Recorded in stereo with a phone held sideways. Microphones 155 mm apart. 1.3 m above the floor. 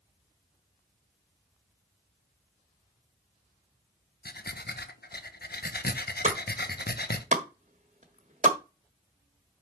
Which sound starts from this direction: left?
Breathing, at 4.2 s.